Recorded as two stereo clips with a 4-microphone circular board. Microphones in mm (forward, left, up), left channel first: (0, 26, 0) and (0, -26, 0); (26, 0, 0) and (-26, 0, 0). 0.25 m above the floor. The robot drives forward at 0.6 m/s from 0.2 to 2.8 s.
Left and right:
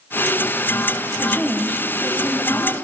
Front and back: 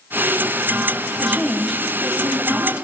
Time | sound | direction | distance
1.2 | a woman speaking | 80° left | 1.7 m